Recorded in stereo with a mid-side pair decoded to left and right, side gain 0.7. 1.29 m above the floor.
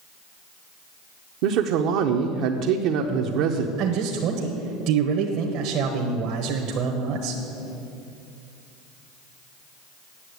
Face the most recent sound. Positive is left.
turn(degrees=-60)